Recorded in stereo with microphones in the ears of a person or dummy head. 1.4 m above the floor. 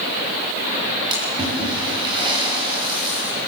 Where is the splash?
20° right (ahead or behind), 8 m.